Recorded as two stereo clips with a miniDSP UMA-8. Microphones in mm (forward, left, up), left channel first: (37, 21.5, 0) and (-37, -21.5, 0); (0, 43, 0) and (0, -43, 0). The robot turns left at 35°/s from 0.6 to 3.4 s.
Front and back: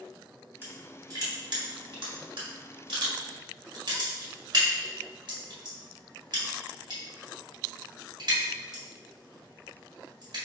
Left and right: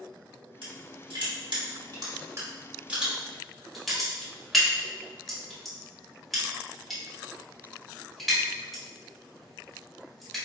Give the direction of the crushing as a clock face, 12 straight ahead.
3 o'clock.